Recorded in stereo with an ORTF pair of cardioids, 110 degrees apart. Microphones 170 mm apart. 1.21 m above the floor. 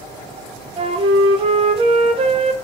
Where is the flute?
35° right, 0.7 m.